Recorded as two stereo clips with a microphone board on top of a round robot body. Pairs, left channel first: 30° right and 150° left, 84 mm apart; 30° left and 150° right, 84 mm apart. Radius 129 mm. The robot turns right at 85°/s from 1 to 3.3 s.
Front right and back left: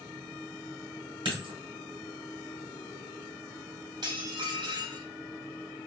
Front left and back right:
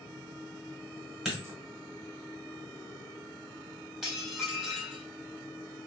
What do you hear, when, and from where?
1.2 s a dropped coin: 125° left, 1.4 m; by 1.5 s 150° left, 1.4 m
4.0 s dishes clattering: 125° left, 1.5 m